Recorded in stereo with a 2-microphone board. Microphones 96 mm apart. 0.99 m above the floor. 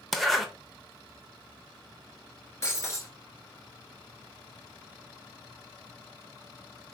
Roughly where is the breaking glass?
Left.